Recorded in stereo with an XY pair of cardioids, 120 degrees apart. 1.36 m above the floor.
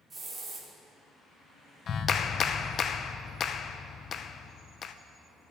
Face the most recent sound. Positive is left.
turn(degrees=45)